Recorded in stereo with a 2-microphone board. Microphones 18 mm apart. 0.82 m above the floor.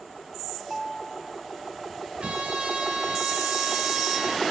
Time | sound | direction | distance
0.6 | a ringtone | 30° right (ahead or behind) | 1.3 m
2.2 | a trumpet | 75° right (ahead or behind) | 2 m